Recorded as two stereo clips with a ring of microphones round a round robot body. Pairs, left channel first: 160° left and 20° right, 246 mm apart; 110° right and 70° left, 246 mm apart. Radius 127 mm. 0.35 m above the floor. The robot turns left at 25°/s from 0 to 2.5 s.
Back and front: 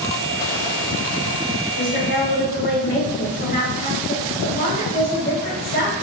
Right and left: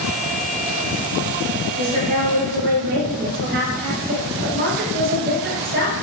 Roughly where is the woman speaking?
Behind left.